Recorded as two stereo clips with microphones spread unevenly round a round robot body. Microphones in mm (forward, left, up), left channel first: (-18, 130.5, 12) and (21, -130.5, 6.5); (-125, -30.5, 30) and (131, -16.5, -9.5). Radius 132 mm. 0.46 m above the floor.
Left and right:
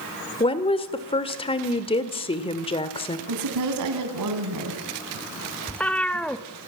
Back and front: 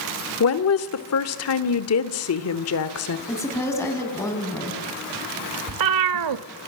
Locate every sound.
0.4 s a woman speaking: 165° left, 1.6 m
3.3 s a woman speaking: 95° right, 4.5 m
5.7 s a cat meowing: 15° left, 0.8 m